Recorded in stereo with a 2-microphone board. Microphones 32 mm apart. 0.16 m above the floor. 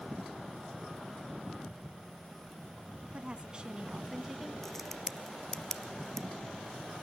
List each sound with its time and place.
3.1 s a woman speaking: 35° right (ahead or behind), 1.2 m; by 4.5 s 10° right (ahead or behind), 1.0 m
4.6 s a crack: 10° left (ahead or behind), 0.6 m